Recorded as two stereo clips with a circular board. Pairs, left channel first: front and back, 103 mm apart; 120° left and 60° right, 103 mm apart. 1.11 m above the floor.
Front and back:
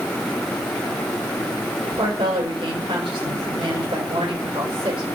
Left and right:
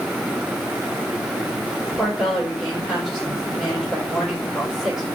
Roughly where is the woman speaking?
Behind right.